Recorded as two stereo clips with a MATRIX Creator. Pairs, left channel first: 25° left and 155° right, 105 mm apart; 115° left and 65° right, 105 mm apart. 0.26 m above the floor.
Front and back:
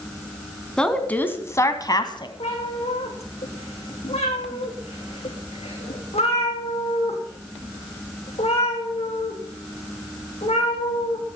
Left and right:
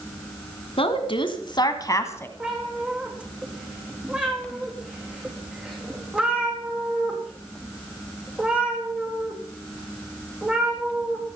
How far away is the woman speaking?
About 2.5 m.